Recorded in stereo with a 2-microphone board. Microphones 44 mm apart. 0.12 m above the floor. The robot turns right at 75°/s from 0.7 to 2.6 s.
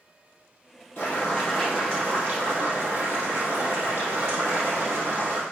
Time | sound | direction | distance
1.0 | boiling | 125° left | 3.5 m